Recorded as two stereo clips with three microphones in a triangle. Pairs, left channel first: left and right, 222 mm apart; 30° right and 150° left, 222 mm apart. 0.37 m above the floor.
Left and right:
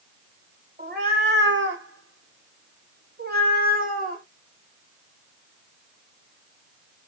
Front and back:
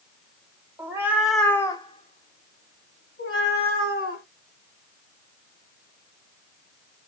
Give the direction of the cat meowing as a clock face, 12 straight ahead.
4 o'clock.